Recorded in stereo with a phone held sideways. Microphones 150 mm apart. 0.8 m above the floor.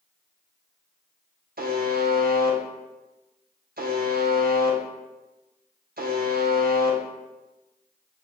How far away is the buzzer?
About 0.7 m.